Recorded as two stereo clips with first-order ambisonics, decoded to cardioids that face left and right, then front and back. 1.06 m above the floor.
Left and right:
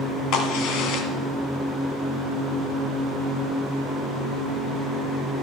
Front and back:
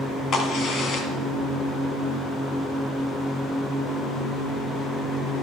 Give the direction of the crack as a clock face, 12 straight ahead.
10 o'clock.